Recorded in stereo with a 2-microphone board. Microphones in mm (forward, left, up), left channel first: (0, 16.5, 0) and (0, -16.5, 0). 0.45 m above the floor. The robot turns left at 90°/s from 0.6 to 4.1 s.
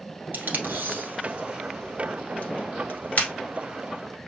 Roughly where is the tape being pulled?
Right.